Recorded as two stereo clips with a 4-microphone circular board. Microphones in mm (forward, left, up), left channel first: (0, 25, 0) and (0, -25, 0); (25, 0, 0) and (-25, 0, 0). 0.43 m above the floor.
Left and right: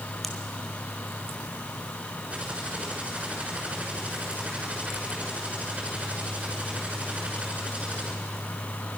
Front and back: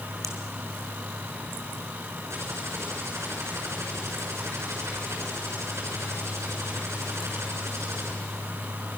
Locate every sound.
0.2 s a pop: straight behind, 2.5 m
2.3 s typing on a keyboard: 155° right, 6.5 m